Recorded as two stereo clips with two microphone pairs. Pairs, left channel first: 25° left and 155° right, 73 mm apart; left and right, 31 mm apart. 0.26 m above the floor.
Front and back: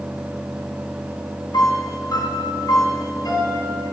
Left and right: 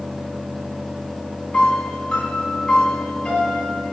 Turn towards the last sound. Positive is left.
turn(degrees=45)